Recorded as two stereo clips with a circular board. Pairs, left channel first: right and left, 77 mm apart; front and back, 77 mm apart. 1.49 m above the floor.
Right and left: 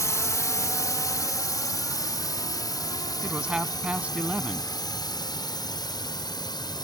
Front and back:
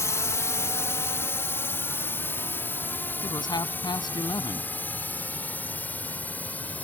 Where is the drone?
45° right; by 6.8 s 70° right.